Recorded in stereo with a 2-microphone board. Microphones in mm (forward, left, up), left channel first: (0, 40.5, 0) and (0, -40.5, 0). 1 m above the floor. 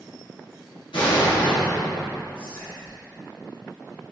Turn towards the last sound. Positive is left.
turn(degrees=55)  # may be behind; listen again after turning